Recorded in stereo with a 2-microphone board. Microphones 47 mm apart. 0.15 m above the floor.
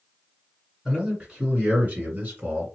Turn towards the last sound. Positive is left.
turn(degrees=-35)  # may be behind; listen again after turning